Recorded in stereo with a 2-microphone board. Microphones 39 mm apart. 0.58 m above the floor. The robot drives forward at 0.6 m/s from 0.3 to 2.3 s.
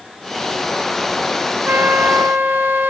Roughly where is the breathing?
I don't hear breathing.